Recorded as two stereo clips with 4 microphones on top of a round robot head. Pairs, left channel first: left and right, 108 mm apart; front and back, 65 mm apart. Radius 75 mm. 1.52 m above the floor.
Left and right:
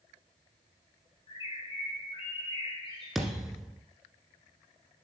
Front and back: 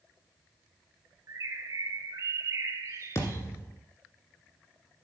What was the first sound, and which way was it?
A bird, 145° left.